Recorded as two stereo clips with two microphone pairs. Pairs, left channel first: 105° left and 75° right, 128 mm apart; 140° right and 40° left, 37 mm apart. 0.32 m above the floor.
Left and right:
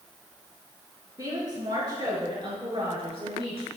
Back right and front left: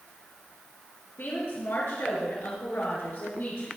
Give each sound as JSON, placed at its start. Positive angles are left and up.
{"t": 1.2, "sound": "a woman speaking", "azimuth_deg": -140, "distance_m": 5.5}